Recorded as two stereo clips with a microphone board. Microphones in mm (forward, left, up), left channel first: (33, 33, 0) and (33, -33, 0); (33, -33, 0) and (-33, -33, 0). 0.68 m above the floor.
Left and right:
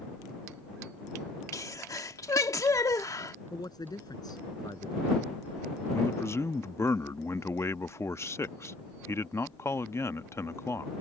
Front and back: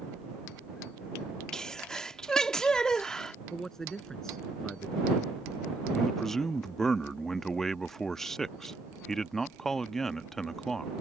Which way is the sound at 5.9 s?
80° left.